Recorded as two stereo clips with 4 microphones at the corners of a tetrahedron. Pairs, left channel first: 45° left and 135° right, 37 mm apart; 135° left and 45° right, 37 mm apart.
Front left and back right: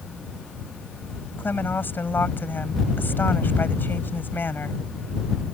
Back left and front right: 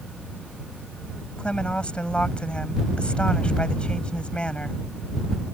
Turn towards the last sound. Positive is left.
turn(degrees=70)